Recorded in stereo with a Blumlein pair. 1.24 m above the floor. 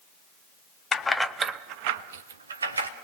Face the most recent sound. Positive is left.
turn(degrees=-80)